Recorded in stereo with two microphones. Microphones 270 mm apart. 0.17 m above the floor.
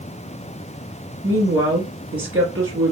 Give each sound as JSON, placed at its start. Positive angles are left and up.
{"t": 1.2, "sound": "a woman speaking", "side_deg": -55, "distance_m": 2.5}